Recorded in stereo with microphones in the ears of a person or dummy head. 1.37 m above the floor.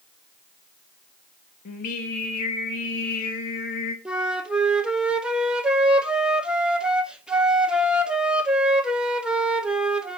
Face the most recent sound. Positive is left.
turn(degrees=-5)  # may be behind; listen again after turning